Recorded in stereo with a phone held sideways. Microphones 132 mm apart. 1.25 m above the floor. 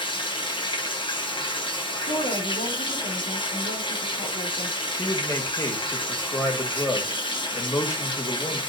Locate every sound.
0.0 s running water: 35° left (ahead or behind), 1.5 m
2.0 s a woman speaking: 80° left, 3 m
5.0 s a man speaking: 25° left (ahead or behind), 2 m